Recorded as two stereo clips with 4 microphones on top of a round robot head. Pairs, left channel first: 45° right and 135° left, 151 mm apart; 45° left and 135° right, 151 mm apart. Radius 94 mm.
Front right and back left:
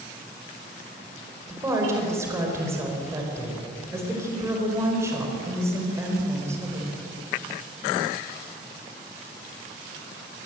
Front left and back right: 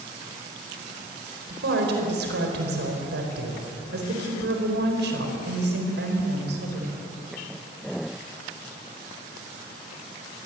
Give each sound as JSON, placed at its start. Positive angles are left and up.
{"t": 1.5, "sound": "a woman speaking", "azimuth_deg": -150, "distance_m": 4.5}